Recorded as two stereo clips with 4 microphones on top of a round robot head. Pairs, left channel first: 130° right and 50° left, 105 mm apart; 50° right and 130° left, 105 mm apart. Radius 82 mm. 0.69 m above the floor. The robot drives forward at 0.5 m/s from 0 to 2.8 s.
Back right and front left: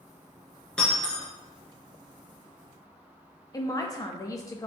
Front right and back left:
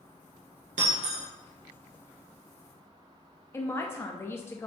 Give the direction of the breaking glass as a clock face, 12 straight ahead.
7 o'clock.